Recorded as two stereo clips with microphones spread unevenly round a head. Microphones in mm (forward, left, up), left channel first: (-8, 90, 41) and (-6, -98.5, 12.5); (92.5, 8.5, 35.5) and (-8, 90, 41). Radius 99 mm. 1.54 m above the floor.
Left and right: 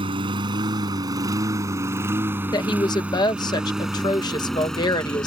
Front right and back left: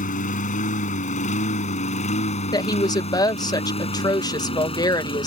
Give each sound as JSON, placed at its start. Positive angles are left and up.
{"t": 0.0, "sound": "a lawn mower", "azimuth_deg": -20}
{"t": 2.5, "sound": "a woman speaking", "azimuth_deg": 20}